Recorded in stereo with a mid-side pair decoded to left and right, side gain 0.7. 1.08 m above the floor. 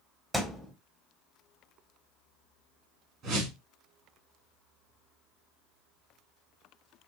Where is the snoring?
I don't hear snoring.